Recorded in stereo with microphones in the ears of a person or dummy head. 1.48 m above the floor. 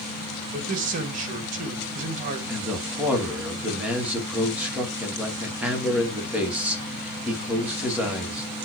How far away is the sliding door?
I don't hear a sliding door.